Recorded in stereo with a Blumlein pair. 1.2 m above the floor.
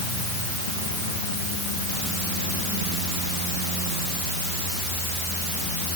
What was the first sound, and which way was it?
Only background noise.